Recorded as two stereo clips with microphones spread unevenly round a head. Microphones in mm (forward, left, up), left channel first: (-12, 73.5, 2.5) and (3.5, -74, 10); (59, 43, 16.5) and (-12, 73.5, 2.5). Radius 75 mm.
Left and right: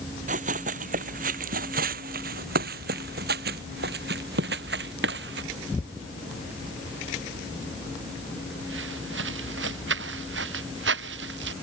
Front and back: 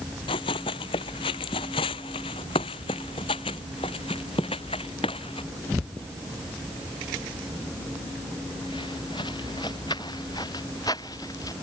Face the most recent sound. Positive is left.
turn(degrees=-90)